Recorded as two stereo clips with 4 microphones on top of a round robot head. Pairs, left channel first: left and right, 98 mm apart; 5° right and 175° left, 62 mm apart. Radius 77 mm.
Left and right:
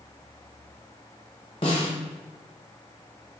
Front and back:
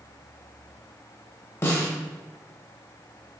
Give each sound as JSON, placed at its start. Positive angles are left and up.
{"t": 1.6, "sound": "a snare drum", "azimuth_deg": 40, "distance_m": 0.9}